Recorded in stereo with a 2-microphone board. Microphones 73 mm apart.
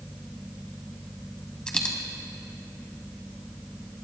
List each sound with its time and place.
1.7 s a dropped coin: 15° left (ahead or behind), 1.4 m